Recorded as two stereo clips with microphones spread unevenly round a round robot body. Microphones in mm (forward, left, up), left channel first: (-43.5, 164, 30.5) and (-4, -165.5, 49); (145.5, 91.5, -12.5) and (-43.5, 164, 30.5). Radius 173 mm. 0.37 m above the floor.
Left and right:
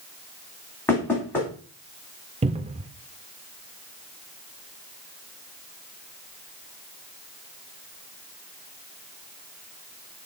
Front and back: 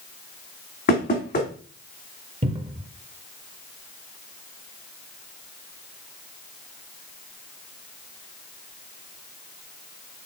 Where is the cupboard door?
145° right, 0.5 m.